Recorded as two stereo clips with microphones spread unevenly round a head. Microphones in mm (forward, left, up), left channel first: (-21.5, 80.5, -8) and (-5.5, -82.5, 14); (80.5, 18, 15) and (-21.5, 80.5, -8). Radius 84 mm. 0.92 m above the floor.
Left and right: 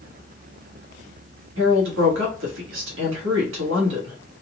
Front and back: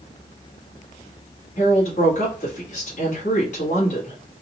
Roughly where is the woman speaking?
Right.